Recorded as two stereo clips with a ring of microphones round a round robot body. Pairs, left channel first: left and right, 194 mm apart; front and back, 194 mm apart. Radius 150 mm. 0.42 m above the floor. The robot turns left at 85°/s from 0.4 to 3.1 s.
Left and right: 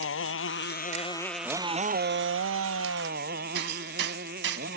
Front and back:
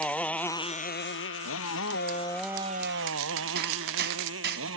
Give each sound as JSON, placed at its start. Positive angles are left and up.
{"t": 0.0, "sound": "a motorcycle", "azimuth_deg": 85}
{"t": 3.5, "sound": "hammering", "azimuth_deg": -130}